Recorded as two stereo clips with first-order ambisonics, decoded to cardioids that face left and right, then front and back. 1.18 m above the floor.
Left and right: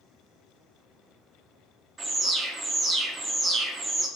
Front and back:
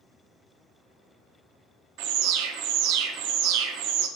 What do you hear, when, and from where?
2.0 s an alarm: 160° right, 0.5 m